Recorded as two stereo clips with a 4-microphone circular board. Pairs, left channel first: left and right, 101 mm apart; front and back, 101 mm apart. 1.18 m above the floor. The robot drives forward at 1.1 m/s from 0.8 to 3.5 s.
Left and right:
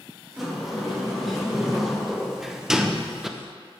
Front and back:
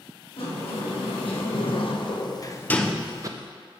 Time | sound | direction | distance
0.4 | a sliding door | straight ahead | 2.5 m